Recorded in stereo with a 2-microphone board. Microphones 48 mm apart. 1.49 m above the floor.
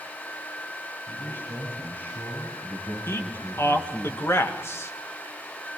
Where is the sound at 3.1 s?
55° left (ahead or behind), 2 m.